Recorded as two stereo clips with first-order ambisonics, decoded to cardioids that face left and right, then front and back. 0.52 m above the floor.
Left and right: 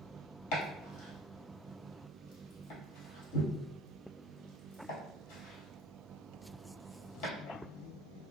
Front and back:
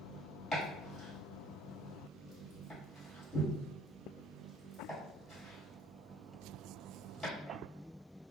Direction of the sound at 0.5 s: 85° left.